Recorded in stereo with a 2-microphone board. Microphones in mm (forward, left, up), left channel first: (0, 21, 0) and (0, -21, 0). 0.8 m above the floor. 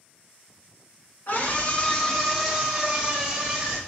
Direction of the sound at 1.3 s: 50° left (ahead or behind).